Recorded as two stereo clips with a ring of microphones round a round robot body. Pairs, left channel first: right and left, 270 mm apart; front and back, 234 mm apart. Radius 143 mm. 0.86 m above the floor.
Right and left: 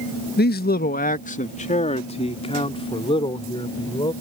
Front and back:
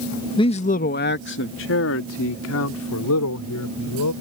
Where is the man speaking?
60° right; by 4.1 s 15° right.